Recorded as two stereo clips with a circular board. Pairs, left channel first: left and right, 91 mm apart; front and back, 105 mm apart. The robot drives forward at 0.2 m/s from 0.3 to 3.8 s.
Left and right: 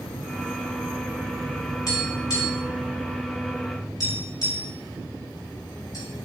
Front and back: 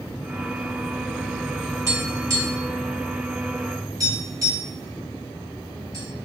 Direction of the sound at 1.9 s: 120° left.